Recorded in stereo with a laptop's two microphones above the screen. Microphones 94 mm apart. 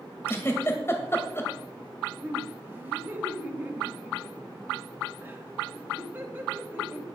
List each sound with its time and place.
0.3 s a giggle: 25° left (ahead or behind), 2 m
2.2 s laughter: 20° right (ahead or behind), 2 m